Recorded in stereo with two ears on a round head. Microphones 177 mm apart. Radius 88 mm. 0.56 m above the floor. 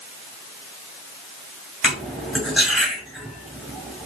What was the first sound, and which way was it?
Cutlery clinking, centre (ahead or behind).